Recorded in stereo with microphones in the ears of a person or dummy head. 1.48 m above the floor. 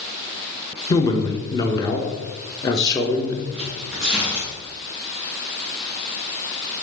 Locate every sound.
0.9 s a man speaking: 20° left (ahead or behind), 1.2 m
3.5 s tearing paper: 5° right (ahead or behind), 2 m